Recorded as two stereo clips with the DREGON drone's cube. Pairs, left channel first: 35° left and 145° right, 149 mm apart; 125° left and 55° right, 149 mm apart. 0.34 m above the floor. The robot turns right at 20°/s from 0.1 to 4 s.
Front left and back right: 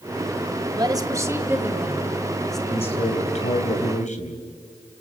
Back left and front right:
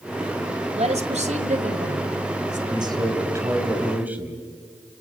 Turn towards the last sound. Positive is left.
turn(degrees=20)